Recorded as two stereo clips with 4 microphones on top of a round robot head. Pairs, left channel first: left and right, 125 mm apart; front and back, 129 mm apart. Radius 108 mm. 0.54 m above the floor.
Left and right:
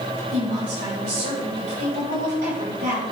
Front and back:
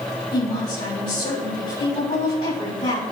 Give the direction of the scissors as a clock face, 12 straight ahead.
No scissors in this recording.